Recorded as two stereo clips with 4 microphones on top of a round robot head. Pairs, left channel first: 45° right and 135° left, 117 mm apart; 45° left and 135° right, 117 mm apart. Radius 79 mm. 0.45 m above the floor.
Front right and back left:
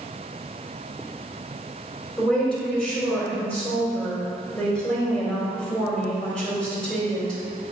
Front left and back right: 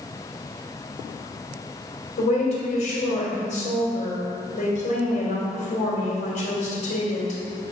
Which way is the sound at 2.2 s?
35° left.